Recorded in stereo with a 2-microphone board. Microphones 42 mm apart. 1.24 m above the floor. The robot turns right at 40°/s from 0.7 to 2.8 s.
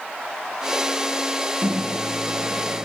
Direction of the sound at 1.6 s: 135° right.